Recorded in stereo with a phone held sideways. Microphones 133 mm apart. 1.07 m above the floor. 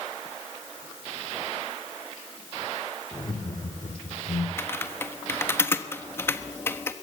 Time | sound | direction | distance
3.1 | laughter | 30° left (ahead or behind) | 3.5 m
4.6 | typing on a keyboard | 20° left (ahead or behind) | 1.3 m